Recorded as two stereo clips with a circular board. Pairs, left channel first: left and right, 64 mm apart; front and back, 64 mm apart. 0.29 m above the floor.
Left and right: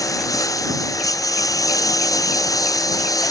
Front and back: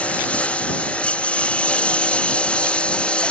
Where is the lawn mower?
70° left.